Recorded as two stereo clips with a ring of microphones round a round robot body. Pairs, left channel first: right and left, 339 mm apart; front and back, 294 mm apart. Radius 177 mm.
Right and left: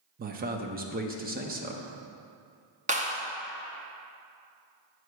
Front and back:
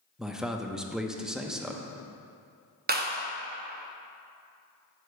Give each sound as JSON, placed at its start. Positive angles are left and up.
{"t": 0.2, "sound": "a man speaking", "azimuth_deg": 95, "distance_m": 0.6}
{"t": 2.9, "sound": "a clap", "azimuth_deg": 145, "distance_m": 0.8}